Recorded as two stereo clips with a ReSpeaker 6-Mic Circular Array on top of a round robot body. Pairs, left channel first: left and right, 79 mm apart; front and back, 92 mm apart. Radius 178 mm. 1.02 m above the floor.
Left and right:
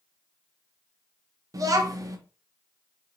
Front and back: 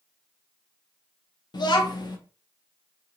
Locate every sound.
1.5 s a child speaking: 45° right, 0.8 m